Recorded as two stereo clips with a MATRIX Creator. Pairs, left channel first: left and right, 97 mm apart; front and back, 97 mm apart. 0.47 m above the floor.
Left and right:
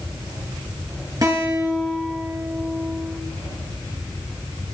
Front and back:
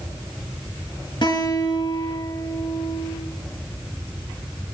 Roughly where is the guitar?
Ahead right.